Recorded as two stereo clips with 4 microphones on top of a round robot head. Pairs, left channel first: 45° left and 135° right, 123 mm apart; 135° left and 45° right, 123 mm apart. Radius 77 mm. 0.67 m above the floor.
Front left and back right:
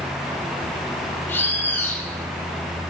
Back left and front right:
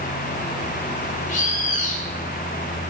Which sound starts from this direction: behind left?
A bird, at 1.3 s.